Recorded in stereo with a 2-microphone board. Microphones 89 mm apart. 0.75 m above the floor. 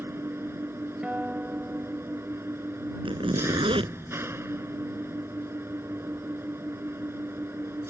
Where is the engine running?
30° right (ahead or behind).